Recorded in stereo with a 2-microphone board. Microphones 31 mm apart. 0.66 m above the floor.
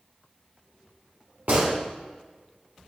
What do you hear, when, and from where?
1.5 s a gunshot: 70° right (ahead or behind), 1.7 m